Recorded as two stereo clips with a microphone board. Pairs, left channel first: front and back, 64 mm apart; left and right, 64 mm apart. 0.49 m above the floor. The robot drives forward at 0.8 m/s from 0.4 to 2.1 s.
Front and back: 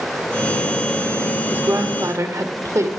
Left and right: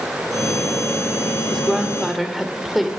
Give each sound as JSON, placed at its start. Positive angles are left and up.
{"t": 1.5, "sound": "a woman speaking", "azimuth_deg": -175, "distance_m": 1.1}